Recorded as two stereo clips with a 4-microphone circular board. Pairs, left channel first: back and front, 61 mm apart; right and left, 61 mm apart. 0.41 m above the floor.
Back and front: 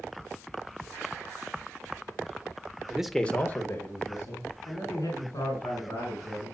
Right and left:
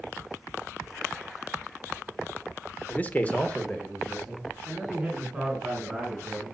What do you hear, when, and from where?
2.9 s a man speaking: 55° right, 0.8 m; by 6.5 s straight behind, 5 m